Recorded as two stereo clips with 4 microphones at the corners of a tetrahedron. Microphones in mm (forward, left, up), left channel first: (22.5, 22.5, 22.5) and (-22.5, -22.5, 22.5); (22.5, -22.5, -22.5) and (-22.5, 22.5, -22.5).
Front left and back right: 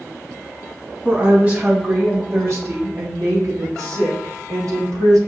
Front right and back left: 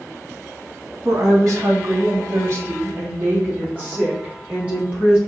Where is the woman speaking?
160° left, 2 m; by 5.2 s 155° right, 3 m.